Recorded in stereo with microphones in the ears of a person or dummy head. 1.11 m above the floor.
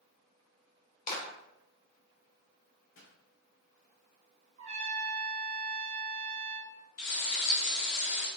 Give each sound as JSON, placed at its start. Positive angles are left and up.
{"t": 1.1, "sound": "a clap", "side_deg": 40, "distance_m": 3.5}
{"t": 2.9, "sound": "a pop", "side_deg": 75, "distance_m": 2.5}
{"t": 4.6, "sound": "a trumpet", "side_deg": -30, "distance_m": 1.3}
{"t": 7.0, "sound": "frying", "side_deg": 80, "distance_m": 3.0}